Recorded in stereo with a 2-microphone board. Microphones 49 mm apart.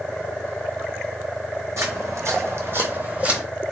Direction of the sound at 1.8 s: 80° right.